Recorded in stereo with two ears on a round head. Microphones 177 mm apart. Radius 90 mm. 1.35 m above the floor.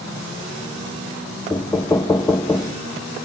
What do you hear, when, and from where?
1.5 s knocking: 15° left (ahead or behind), 0.6 m